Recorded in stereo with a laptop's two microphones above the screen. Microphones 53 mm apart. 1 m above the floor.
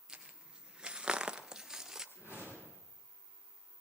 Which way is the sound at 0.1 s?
15° right (ahead or behind).